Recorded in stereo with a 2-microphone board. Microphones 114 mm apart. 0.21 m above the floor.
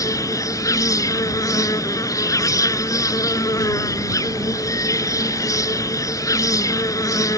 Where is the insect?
30° left (ahead or behind).